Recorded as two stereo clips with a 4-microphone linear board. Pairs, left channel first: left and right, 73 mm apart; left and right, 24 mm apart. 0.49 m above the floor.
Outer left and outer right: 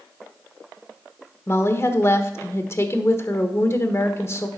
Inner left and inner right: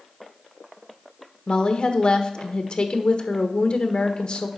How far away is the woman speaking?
About 1.2 m.